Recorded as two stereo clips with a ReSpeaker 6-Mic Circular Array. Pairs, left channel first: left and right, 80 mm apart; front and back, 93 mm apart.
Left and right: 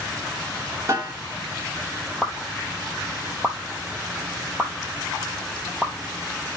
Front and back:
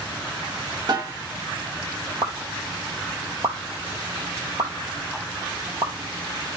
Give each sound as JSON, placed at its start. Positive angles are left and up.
{"t": 0.9, "sound": "a snare drum", "azimuth_deg": -145, "distance_m": 3.5}
{"t": 2.2, "sound": "a pop", "azimuth_deg": -170, "distance_m": 0.7}